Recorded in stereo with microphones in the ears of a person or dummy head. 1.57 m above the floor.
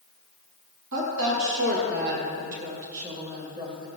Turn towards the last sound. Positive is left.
turn(degrees=-25)  # may be behind; listen again after turning